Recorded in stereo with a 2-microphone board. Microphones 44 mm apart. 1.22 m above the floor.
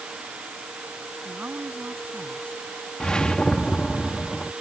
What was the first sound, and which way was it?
A woman speaking, 35° right (ahead or behind).